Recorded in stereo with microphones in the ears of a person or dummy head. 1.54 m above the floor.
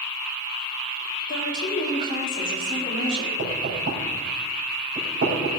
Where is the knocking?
45° right (ahead or behind), 4.5 m.